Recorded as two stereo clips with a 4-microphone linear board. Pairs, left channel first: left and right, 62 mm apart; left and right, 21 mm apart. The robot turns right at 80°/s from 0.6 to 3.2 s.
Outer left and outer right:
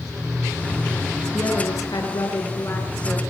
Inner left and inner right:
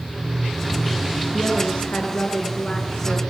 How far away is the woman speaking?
About 6.5 m.